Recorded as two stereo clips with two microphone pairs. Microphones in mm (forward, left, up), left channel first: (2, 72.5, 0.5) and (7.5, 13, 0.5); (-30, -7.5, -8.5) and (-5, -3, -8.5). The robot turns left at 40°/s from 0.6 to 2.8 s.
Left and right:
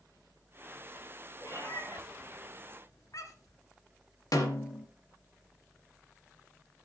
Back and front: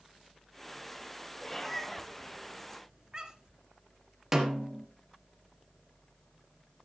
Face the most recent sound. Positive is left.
turn(degrees=85)